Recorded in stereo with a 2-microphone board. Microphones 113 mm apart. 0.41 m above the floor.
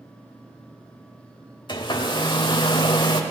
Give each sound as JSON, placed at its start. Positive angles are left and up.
{"t": 1.7, "sound": "a hair dryer", "side_deg": 40, "distance_m": 1.1}